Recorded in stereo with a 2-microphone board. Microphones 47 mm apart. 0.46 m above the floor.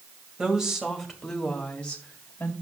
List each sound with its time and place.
0.4 s a woman speaking: 20° right (ahead or behind), 2 m; by 2.5 s 35° left (ahead or behind), 2 m